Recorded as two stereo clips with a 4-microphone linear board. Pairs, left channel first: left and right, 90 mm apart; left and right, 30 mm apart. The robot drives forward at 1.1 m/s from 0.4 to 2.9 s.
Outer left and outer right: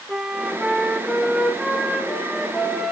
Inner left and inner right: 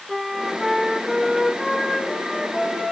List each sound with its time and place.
0.1 s a flute: 10° right (ahead or behind), 0.9 m; by 2.9 s centre (ahead or behind), 3 m